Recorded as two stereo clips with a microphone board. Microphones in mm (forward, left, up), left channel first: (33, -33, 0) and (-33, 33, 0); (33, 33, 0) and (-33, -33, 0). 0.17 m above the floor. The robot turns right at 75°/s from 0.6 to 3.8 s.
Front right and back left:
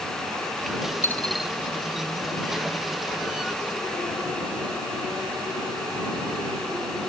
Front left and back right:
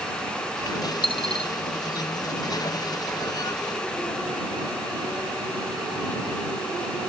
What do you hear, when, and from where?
1.0 s a dropped coin: 20° left; by 1.5 s 55° left